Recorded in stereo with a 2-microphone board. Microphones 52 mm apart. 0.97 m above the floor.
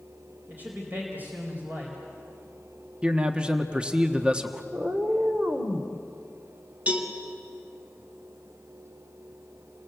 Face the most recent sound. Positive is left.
turn(degrees=-25)  # may be behind; listen again after turning